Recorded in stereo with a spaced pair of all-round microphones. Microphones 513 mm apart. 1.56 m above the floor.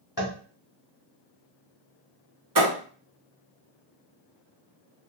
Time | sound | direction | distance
0.2 | tapping | 45° left (ahead or behind) | 1.0 m
2.5 | a thud | 35° right (ahead or behind) | 1.1 m